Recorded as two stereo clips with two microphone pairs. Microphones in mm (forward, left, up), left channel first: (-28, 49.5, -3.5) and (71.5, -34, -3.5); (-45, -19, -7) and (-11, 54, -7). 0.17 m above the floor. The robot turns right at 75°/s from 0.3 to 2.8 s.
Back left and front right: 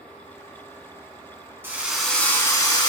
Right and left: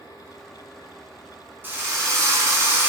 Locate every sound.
1.6 s a drill: 20° left, 0.9 m; by 2.9 s 110° left, 0.9 m